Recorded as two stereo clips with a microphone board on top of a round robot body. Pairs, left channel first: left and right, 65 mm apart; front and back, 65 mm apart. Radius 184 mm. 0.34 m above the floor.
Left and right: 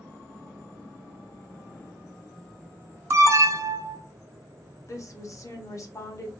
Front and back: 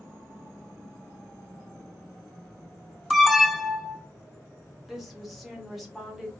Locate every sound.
3.1 s an alarm: 90° right, 1.1 m
4.9 s a woman speaking: 95° left, 1.9 m